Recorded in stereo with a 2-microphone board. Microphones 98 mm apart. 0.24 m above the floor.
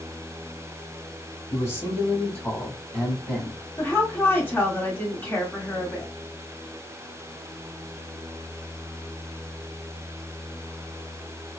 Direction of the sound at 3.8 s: 20° left (ahead or behind).